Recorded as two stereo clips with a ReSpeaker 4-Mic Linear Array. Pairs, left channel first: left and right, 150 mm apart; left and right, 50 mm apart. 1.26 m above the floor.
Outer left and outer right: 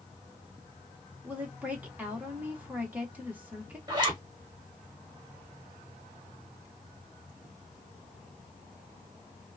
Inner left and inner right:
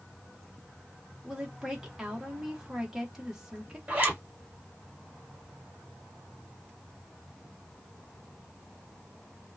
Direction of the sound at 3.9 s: 25° right (ahead or behind).